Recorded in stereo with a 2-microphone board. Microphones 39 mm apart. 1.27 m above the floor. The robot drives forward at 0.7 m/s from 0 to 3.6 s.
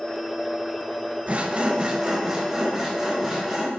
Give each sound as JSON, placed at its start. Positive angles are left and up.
{"t": 1.3, "sound": "sawing", "side_deg": -40, "distance_m": 0.7}